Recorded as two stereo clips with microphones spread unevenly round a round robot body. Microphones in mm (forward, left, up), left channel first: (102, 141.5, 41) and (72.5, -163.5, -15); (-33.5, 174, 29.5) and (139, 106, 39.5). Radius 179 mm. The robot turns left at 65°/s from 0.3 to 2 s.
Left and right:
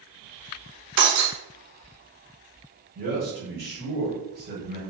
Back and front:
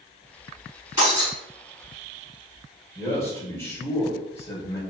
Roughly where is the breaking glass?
Right.